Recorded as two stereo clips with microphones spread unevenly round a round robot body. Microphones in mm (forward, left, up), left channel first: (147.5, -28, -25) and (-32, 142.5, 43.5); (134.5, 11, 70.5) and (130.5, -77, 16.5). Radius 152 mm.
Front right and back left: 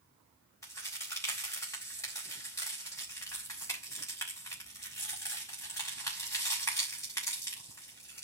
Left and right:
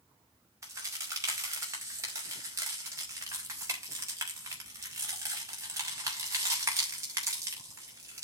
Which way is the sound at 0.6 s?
115° right.